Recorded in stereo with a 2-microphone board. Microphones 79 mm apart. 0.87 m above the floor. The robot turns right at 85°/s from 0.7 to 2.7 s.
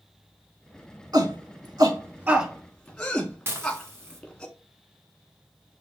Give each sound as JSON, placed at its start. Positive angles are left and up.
{"t": 1.1, "sound": "a shout", "side_deg": -50, "distance_m": 1.5}
{"t": 3.5, "sound": "dishes clattering", "side_deg": -35, "distance_m": 1.0}